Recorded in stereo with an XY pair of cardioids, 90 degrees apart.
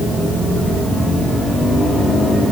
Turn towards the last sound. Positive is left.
No sound to turn to.